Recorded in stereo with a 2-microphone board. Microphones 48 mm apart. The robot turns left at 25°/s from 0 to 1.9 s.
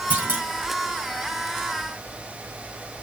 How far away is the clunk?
About 2 m.